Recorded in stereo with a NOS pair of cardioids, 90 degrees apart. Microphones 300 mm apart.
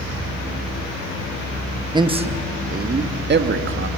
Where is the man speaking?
15° right, 1.1 m; by 3.9 s 45° right, 1.8 m.